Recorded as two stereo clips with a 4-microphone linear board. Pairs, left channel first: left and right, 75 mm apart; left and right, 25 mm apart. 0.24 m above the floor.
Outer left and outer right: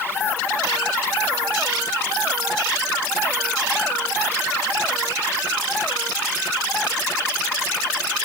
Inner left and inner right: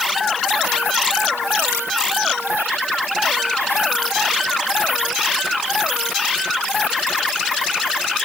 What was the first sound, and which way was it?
Only background noise.